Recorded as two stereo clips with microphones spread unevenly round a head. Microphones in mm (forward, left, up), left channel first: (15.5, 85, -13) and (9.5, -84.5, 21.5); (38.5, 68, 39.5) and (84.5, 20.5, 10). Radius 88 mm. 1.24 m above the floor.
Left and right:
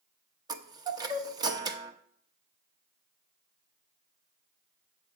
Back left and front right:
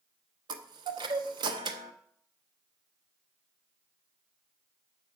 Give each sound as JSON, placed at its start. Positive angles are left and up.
{"t": 0.5, "sound": "a chime", "azimuth_deg": -45, "distance_m": 0.9}